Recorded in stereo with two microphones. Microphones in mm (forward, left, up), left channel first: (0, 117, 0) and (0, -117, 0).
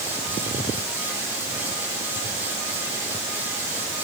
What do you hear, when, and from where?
Only background noise.